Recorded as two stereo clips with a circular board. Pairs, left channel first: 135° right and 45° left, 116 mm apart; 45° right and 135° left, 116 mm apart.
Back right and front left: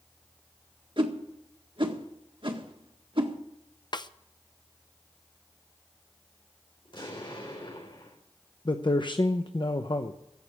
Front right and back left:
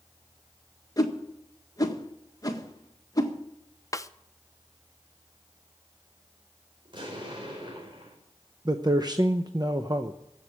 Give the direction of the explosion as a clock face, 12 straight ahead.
6 o'clock.